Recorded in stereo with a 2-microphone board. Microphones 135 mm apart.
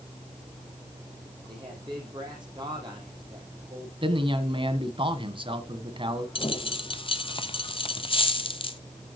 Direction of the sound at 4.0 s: 40° right (ahead or behind).